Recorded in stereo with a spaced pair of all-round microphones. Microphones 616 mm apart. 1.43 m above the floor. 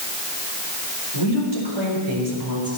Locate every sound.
1.1 s a woman speaking: 45° right (ahead or behind), 4 m; by 2.8 s 40° right (ahead or behind), 5 m